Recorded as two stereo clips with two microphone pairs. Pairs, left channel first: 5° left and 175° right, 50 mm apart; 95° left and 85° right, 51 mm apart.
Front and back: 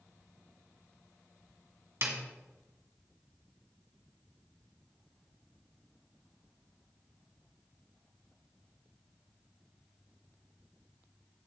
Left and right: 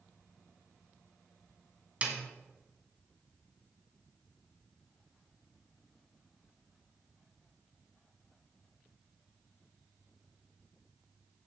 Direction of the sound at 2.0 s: 145° right.